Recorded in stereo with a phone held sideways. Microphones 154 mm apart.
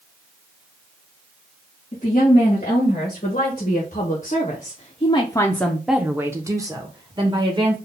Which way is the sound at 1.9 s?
50° left (ahead or behind).